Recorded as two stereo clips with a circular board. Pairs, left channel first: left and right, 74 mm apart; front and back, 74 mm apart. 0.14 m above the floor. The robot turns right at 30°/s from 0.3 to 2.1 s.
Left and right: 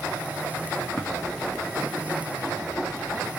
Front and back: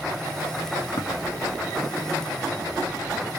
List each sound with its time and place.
1.0 s tapping: 15° left, 1.6 m; by 1.1 s 20° left, 1.6 m